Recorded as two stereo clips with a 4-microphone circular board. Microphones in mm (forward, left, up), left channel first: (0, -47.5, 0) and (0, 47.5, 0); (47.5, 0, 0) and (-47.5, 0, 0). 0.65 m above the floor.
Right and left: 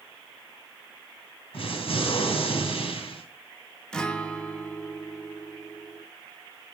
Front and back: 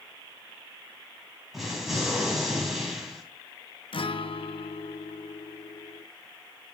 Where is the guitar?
10° right, 0.6 m.